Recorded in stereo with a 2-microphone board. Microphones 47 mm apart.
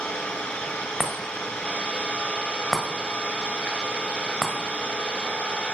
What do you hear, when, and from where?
0.0 s an engine running: 20° left (ahead or behind), 2.5 m
1.0 s a chime: 5° right (ahead or behind), 1.6 m